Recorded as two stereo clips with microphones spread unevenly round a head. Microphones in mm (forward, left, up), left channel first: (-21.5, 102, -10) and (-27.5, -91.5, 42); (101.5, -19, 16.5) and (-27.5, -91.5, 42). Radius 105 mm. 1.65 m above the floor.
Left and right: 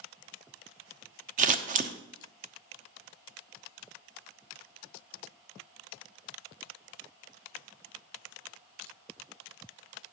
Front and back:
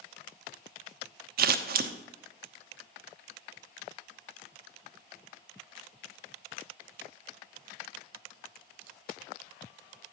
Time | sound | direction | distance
1.4 | scissors | 140° right | 0.7 m